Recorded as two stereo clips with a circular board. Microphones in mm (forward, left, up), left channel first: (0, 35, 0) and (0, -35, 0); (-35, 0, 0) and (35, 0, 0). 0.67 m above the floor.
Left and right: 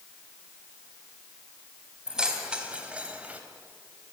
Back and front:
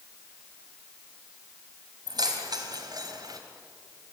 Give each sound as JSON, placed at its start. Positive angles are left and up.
{"t": 2.1, "sound": "keys jangling", "azimuth_deg": -10, "distance_m": 3.5}